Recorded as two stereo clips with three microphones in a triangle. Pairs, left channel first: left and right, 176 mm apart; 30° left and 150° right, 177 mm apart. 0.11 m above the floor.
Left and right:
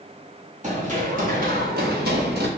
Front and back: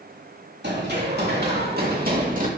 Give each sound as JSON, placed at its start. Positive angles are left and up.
{"t": 0.6, "sound": "running footsteps", "azimuth_deg": -135, "distance_m": 3.0}